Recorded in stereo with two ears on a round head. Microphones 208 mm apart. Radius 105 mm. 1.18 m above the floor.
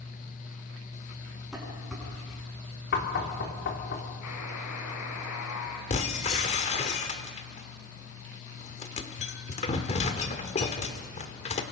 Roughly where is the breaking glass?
Left.